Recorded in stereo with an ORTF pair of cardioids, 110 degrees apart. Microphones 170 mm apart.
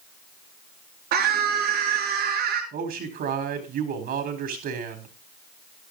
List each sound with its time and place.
1.1 s a scream: 65° right, 5.5 m
2.7 s a man speaking: 65° right, 4 m